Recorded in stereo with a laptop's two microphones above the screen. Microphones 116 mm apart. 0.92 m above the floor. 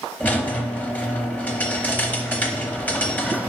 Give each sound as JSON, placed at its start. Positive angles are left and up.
{"t": 0.2, "sound": "a squeak", "side_deg": 15, "distance_m": 0.7}